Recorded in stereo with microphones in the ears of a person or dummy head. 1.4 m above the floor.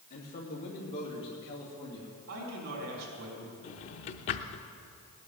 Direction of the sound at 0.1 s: 40° left (ahead or behind).